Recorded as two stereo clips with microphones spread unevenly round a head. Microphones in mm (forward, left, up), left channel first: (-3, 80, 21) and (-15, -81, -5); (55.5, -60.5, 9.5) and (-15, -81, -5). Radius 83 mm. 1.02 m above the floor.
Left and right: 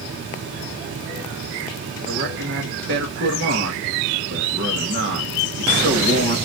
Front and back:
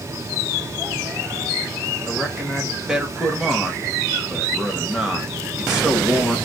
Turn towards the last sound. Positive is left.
turn(degrees=-80)